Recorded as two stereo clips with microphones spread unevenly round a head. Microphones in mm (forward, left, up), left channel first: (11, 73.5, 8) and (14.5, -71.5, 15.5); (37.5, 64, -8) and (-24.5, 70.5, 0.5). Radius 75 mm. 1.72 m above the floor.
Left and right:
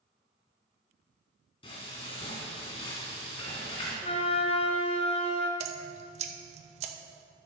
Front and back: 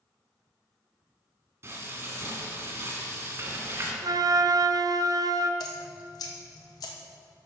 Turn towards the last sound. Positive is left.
turn(degrees=-50)